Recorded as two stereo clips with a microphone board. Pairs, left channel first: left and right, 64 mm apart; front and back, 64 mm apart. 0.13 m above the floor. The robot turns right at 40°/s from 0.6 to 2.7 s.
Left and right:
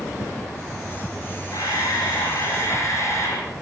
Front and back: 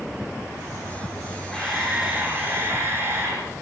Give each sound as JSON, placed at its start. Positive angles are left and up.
{"t": 1.5, "sound": "a camera shutter", "azimuth_deg": 85, "distance_m": 7.5}